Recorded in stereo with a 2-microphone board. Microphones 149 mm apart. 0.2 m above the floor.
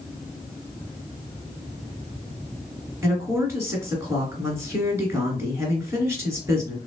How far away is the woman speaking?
About 2 m.